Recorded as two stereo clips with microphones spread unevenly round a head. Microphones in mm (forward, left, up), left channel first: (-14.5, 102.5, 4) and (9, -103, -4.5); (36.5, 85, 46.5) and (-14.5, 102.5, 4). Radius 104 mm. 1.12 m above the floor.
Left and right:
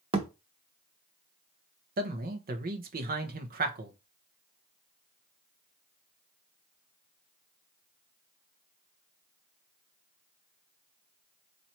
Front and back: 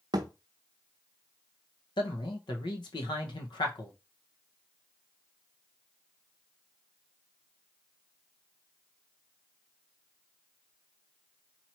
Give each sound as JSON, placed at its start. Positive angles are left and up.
{"t": 0.1, "sound": "a thud", "azimuth_deg": -130, "distance_m": 0.7}
{"t": 2.0, "sound": "a man speaking", "azimuth_deg": -35, "distance_m": 0.9}